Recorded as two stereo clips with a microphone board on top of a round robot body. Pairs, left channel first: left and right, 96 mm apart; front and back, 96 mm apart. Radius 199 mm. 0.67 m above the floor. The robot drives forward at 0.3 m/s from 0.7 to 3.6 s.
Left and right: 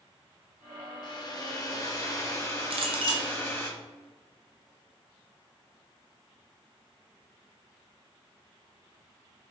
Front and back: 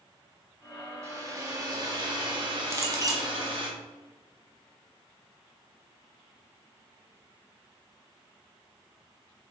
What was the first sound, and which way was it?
A hair dryer, 125° left.